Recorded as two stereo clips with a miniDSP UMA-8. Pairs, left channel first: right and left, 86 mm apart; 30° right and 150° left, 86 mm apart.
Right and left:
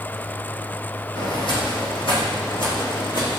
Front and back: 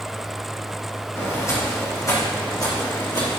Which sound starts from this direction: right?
Footsteps, at 1.1 s.